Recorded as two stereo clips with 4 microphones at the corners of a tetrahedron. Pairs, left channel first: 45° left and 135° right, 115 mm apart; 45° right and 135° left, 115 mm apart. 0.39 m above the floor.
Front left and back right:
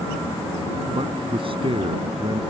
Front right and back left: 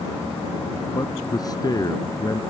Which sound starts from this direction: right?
A man speaking, at 0.9 s.